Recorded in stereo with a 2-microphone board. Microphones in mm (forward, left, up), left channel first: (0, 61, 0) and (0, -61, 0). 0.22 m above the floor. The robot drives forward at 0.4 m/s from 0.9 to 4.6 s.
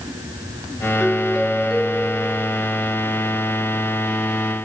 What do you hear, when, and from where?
1.0 s a doorbell: centre (ahead or behind)